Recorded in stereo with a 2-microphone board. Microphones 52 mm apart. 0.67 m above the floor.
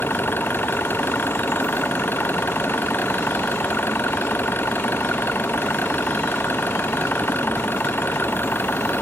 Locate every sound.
0.0 s an engine running: 40° left (ahead or behind)